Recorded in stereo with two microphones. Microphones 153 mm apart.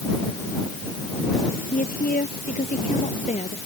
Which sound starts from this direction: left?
A woman speaking, at 1.7 s.